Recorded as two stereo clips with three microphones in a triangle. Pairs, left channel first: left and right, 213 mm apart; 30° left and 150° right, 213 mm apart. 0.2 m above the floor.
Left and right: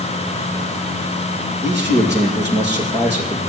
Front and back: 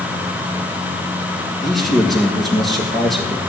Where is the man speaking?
60° right, 4.5 m.